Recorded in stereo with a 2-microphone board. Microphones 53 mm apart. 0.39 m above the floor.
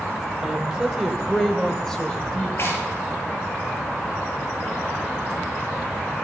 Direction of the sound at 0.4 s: 15° right (ahead or behind).